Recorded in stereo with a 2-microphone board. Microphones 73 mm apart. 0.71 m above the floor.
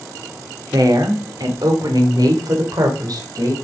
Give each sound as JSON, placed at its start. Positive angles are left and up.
{"t": 0.7, "sound": "a woman speaking", "side_deg": -65, "distance_m": 2.0}